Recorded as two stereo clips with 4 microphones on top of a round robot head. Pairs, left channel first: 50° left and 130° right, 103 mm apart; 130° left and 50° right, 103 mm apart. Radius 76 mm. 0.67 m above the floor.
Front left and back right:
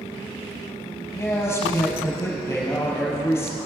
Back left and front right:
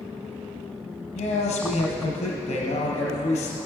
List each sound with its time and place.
1.1 s a man speaking: 120° left, 4.5 m